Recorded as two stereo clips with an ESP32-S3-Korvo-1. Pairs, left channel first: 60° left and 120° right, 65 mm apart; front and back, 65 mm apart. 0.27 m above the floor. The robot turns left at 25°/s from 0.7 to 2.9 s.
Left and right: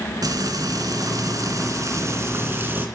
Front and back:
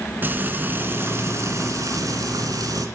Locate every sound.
0.2 s frying: 125° right, 2.5 m; by 2.9 s straight behind, 2.5 m